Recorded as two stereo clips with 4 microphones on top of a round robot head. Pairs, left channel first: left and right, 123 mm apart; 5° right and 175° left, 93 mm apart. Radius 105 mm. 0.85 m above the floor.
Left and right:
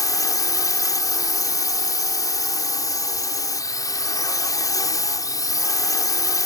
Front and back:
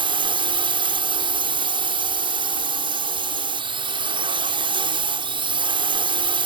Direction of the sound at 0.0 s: 150° left.